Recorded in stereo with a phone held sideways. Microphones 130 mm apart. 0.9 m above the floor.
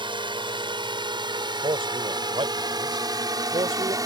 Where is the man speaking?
45° right (ahead or behind).